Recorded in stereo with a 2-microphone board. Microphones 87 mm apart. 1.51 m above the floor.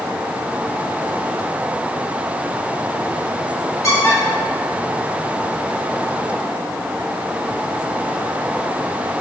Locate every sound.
3.8 s a squeak: 35° left (ahead or behind), 2 m